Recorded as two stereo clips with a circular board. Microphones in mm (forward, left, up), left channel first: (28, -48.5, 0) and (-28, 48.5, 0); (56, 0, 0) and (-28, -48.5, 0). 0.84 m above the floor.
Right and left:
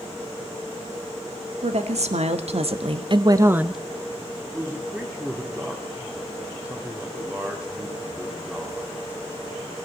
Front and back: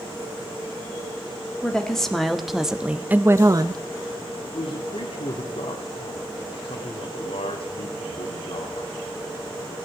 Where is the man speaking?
40° left, 1.7 m.